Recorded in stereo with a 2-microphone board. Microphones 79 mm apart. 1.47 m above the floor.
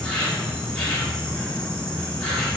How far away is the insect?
About 2 m.